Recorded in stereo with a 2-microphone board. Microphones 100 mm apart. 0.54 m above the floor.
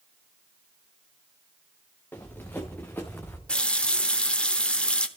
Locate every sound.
2.1 s running footsteps: 20° left (ahead or behind), 3 m
3.5 s a running tap: 10° left (ahead or behind), 0.8 m